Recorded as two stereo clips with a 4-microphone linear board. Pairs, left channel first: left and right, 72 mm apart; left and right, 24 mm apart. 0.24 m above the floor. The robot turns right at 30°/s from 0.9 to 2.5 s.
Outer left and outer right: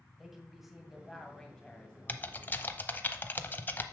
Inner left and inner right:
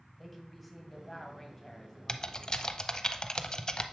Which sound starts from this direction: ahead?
A woman speaking, at 0.2 s.